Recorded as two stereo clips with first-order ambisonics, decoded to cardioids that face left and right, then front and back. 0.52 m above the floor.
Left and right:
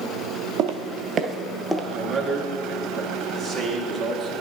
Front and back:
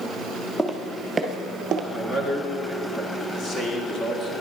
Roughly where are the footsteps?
Right.